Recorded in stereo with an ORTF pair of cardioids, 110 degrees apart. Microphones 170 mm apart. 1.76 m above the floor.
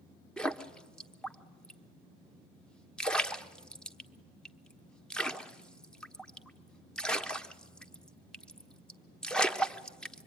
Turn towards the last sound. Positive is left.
turn(degrees=5)